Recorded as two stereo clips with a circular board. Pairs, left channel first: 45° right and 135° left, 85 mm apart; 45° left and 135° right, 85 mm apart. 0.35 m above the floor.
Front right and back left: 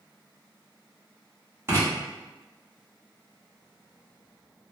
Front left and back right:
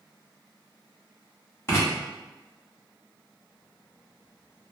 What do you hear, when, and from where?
1.7 s writing: 95° left, 1.4 m